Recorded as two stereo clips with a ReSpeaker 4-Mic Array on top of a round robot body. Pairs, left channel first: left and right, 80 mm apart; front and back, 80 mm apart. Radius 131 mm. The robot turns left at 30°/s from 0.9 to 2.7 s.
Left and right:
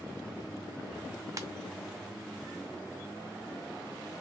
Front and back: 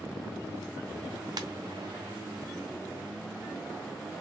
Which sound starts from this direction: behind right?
A ringtone, at 1.4 s.